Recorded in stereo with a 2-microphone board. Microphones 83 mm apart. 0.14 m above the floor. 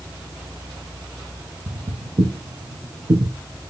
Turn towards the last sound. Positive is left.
turn(degrees=-60)  # may be behind; listen again after turning